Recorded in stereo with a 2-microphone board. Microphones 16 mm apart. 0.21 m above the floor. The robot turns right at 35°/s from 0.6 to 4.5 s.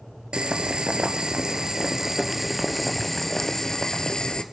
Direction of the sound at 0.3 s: 85° right.